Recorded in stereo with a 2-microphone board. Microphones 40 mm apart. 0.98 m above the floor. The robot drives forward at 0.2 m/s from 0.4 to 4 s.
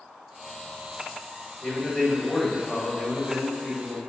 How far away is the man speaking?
About 1.8 m.